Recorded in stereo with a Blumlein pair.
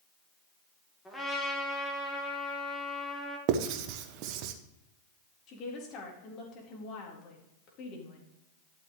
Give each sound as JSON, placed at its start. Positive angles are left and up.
{"t": 1.1, "sound": "a trumpet", "azimuth_deg": 5, "distance_m": 3.0}
{"t": 3.5, "sound": "writing", "azimuth_deg": -40, "distance_m": 1.1}
{"t": 5.5, "sound": "a woman speaking", "azimuth_deg": 35, "distance_m": 4.0}